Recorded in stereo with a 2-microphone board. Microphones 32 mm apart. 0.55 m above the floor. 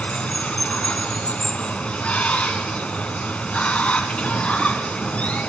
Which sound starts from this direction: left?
Running water, at 0.0 s.